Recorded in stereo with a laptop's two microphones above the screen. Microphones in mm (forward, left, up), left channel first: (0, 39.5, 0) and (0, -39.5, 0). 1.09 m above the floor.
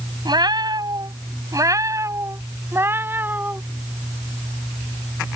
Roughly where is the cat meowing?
Right.